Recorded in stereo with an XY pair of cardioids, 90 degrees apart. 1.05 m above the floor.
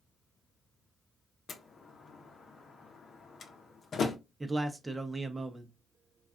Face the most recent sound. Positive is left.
turn(degrees=-20)